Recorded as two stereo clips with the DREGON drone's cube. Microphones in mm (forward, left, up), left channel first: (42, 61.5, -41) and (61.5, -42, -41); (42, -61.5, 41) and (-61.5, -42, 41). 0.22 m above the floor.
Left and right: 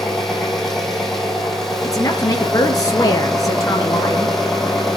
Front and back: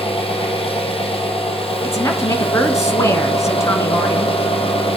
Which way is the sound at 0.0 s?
15° left.